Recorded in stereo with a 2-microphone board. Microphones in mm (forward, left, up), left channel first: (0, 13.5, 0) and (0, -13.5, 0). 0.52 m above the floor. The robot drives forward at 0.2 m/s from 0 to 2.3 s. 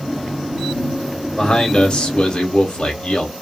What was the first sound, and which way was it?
A man speaking, 40° left (ahead or behind).